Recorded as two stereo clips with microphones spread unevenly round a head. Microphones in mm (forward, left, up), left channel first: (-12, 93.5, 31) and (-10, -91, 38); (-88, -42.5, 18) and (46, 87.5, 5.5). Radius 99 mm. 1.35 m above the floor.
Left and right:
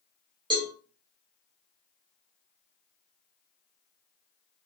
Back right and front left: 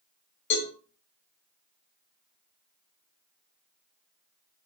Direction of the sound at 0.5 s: 155° right.